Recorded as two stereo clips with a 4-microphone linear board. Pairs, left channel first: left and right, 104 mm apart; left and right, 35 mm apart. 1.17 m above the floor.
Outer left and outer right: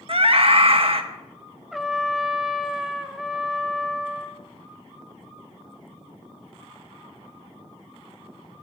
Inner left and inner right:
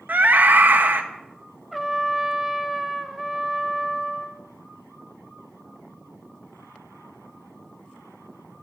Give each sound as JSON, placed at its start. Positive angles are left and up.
{"t": 0.1, "sound": "a scream", "side_deg": -65, "distance_m": 1.2}
{"t": 1.7, "sound": "a trumpet", "side_deg": 0, "distance_m": 0.6}